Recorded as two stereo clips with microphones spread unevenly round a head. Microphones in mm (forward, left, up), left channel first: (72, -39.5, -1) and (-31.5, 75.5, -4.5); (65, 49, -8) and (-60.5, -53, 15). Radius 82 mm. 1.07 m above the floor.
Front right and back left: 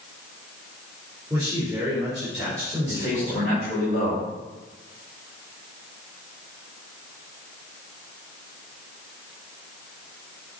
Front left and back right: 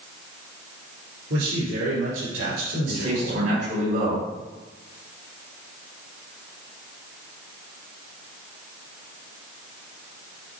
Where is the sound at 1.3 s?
150° right, 4 m.